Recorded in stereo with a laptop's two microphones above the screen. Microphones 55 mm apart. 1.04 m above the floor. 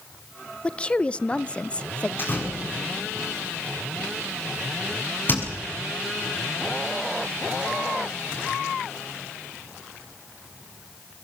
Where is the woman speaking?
20° left (ahead or behind), 0.7 m.